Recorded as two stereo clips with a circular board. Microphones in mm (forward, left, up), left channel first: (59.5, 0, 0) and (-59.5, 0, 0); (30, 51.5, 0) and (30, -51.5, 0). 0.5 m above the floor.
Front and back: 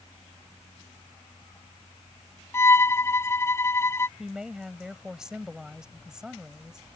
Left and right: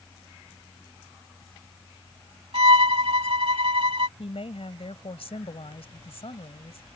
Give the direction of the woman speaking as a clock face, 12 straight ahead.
9 o'clock.